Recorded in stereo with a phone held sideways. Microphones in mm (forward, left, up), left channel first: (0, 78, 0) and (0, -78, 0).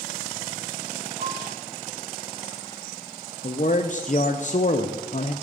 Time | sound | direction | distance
1.2 | a piano | 55° right (ahead or behind) | 1.7 m
3.4 | a man speaking | 55° left (ahead or behind) | 0.5 m